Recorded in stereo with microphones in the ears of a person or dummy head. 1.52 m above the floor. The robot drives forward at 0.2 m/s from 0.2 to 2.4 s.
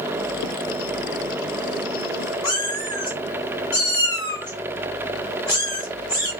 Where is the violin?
I don't hear a violin.